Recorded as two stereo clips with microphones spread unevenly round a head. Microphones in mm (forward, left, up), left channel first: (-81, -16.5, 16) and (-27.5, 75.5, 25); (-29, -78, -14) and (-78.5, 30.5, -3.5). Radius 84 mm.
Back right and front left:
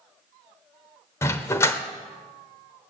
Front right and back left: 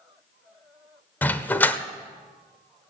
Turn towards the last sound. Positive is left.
turn(degrees=-130)